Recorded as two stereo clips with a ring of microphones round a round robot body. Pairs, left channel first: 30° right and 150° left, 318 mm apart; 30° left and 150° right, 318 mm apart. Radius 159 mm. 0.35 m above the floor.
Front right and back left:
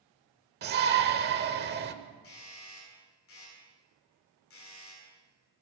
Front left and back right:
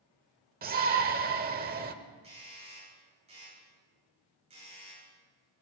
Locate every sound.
0.6 s a shout: 175° left, 1.0 m
2.2 s a doorbell: 80° right, 9 m